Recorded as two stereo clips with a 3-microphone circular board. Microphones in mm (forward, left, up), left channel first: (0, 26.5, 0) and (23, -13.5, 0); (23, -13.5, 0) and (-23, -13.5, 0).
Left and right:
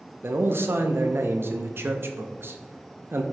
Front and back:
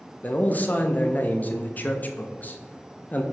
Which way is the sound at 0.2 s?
45° right.